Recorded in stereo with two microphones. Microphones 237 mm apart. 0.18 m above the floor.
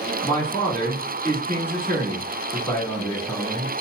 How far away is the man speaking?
About 1.3 m.